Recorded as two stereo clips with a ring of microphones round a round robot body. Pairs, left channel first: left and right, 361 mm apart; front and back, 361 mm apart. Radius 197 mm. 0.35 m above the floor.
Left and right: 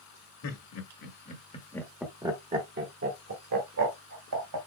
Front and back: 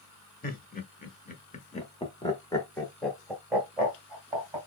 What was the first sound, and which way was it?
Laughter, 60° left.